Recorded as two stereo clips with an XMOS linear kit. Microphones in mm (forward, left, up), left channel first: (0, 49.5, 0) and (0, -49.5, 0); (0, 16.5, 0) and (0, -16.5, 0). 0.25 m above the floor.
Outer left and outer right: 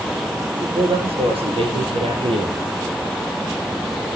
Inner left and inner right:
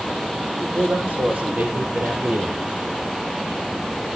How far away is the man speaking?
About 6 m.